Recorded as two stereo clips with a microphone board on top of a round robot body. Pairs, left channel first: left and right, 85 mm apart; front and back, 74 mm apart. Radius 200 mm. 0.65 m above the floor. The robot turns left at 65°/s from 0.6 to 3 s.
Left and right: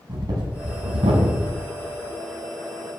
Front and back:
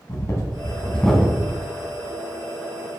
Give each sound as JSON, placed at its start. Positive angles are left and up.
{"t": 0.1, "sound": "breathing", "azimuth_deg": -50, "distance_m": 1.5}